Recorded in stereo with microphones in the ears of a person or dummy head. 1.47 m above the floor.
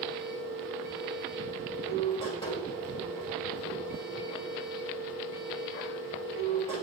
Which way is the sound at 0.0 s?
30° left (ahead or behind).